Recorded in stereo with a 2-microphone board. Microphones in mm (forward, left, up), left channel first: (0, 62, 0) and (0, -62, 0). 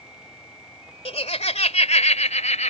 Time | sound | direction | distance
1.1 | laughter | 55° left (ahead or behind) | ?